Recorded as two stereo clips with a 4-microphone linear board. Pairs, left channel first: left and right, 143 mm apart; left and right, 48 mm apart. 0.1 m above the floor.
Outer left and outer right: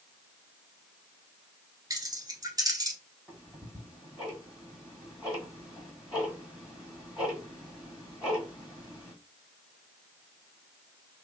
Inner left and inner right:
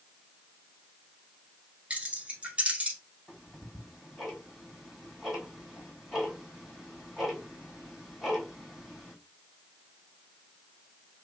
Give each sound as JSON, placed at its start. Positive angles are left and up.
{"t": 1.9, "sound": "keys jangling", "side_deg": -25, "distance_m": 0.8}
{"t": 3.3, "sound": "ticking", "side_deg": -5, "distance_m": 1.5}